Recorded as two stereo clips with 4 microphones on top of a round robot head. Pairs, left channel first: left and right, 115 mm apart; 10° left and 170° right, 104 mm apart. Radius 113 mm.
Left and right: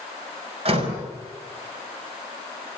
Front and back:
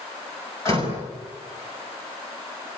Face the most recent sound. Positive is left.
turn(degrees=-55)